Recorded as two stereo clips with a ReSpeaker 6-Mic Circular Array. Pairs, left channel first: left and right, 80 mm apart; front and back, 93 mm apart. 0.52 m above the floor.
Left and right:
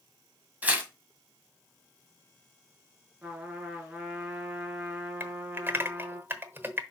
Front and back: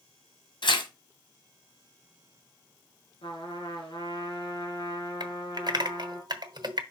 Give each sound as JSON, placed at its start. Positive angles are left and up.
{"t": 0.6, "sound": "tearing paper", "azimuth_deg": -20, "distance_m": 1.6}
{"t": 3.2, "sound": "a trumpet", "azimuth_deg": -15, "distance_m": 3.0}
{"t": 5.2, "sound": "typing on a keyboard", "azimuth_deg": -150, "distance_m": 1.0}